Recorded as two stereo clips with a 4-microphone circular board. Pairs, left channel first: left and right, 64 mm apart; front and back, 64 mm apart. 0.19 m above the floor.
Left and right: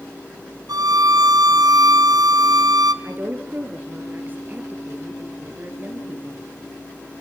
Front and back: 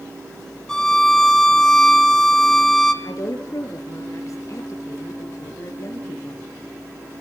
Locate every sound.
0.7 s a violin: 85° right, 1.4 m
3.0 s a woman speaking: 35° right, 3.5 m